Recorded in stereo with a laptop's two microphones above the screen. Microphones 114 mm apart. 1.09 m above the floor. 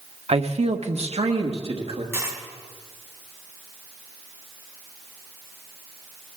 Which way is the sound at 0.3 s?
60° right (ahead or behind).